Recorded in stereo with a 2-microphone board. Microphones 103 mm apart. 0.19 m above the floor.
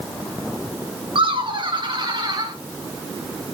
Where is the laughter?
60° right (ahead or behind), 2 m; by 2.5 s 45° right (ahead or behind), 2.5 m.